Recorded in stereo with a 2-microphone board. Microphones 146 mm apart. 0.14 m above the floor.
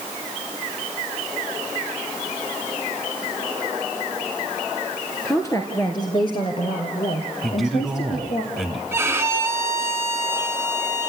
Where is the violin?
20° right (ahead or behind), 1.8 m.